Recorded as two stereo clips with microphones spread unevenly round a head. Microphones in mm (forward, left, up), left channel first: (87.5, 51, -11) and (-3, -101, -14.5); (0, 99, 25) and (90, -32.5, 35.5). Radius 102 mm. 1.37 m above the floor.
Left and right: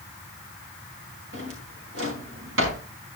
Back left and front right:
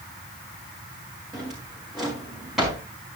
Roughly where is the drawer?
Behind right.